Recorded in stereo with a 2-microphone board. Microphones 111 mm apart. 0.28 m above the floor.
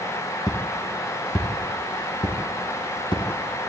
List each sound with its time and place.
0.5 s footsteps: 35° left (ahead or behind), 3 m; by 3.7 s 50° left (ahead or behind), 4.5 m